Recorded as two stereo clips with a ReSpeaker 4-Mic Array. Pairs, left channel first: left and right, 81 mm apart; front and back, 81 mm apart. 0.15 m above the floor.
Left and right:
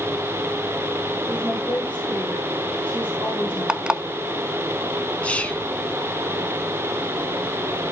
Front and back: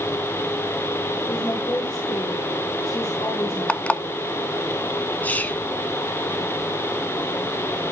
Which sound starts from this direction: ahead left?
Whispering, at 5.2 s.